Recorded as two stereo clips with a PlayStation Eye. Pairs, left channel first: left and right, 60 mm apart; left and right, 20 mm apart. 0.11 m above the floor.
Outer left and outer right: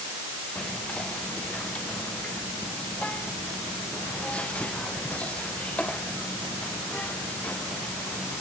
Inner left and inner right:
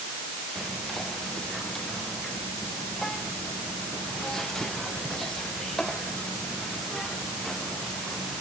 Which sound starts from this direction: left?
Whispering, at 0.6 s.